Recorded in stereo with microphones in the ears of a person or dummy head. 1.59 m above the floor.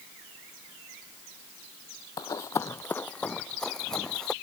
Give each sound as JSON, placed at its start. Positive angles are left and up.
{"t": 2.2, "sound": "running footsteps", "side_deg": 25}